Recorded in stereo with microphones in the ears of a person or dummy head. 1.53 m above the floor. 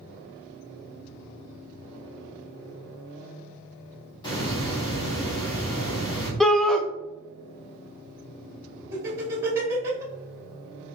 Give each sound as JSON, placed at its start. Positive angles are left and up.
{"t": 4.2, "sound": "a hiss", "side_deg": 25, "distance_m": 1.9}
{"t": 6.4, "sound": "a shout", "side_deg": 0, "distance_m": 0.5}
{"t": 8.9, "sound": "laughter", "side_deg": -15, "distance_m": 1.9}